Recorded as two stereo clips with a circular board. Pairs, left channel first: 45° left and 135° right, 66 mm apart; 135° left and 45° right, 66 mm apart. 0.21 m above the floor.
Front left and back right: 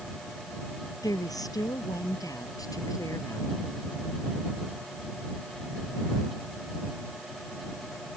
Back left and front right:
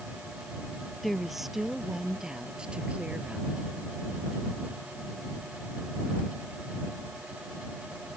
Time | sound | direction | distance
1.0 | a woman speaking | 45° left | ?